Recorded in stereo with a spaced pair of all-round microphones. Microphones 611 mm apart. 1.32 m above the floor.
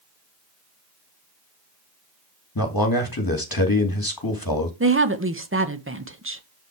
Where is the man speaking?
35° left (ahead or behind), 2 m.